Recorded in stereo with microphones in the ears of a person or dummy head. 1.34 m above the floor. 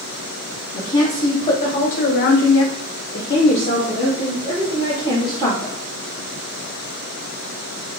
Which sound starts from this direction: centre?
A woman speaking, at 0.7 s.